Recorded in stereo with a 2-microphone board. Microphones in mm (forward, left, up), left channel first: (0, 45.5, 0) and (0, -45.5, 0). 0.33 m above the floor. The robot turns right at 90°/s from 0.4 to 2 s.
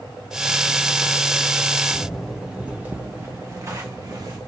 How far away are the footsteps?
About 1.6 m.